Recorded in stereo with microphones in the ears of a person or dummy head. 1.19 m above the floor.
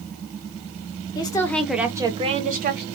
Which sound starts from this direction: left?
A woman speaking, at 1.1 s.